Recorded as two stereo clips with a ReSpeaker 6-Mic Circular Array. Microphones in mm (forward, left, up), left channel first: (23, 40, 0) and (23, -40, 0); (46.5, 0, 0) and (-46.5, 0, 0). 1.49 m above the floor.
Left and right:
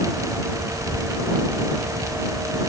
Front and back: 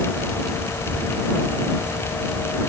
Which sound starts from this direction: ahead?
A child speaking, at 0.7 s.